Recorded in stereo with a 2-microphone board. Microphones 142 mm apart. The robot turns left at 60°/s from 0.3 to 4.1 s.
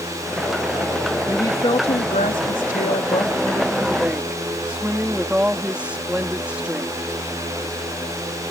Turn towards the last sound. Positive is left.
turn(degrees=-10)